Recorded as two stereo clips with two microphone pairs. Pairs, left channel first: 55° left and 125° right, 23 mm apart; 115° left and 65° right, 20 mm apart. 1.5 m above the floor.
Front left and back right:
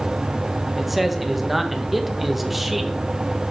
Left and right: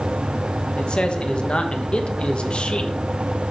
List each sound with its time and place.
0.8 s a man speaking: 155° left, 1.2 m